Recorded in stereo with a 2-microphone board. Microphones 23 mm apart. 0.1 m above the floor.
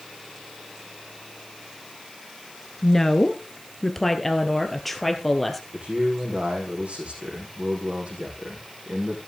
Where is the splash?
I don't hear a splash.